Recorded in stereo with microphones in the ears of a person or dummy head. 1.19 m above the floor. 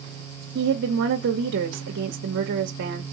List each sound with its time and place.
0.6 s a woman speaking: 60° right (ahead or behind), 0.8 m